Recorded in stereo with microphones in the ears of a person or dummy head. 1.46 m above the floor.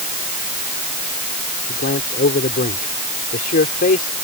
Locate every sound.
1.7 s a man speaking: 45° left (ahead or behind)